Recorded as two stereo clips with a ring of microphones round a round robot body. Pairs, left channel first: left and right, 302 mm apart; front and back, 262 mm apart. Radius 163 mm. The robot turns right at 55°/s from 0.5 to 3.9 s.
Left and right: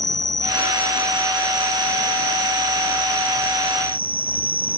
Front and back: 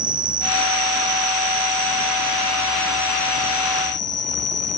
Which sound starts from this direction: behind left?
An insect, at 0.0 s.